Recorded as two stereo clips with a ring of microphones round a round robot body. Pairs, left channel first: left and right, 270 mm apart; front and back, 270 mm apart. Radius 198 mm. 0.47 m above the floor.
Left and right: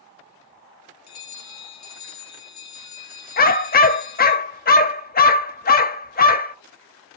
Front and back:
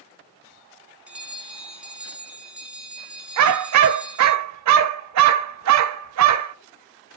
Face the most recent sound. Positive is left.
turn(degrees=150)